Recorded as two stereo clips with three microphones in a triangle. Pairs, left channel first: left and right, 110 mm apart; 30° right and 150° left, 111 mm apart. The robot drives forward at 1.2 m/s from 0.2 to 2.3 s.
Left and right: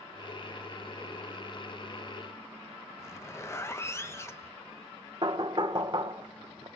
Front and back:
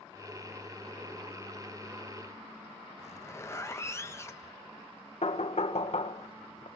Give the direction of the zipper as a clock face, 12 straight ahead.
11 o'clock.